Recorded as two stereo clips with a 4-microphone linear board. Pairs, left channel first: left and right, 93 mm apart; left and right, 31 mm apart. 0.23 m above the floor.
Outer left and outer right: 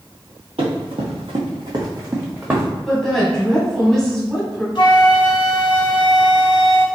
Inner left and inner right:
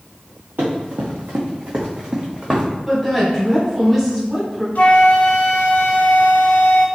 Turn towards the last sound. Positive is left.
turn(degrees=60)  # may be behind; listen again after turning